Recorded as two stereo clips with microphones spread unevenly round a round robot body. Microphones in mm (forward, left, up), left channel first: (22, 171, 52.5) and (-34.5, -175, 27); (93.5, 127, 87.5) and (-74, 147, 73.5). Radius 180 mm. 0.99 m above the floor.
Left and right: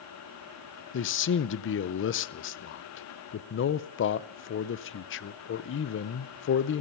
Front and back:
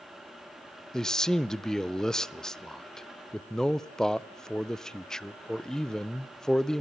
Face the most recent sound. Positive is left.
turn(degrees=85)